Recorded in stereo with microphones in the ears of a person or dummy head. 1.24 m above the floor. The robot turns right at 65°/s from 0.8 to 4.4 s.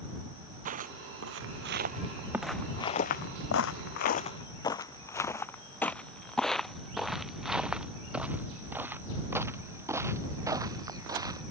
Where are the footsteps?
50° right (ahead or behind); by 11.4 s 20° right (ahead or behind).